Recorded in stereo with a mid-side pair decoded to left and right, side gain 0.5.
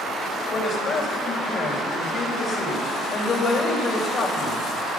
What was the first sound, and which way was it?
A man speaking, 55° left.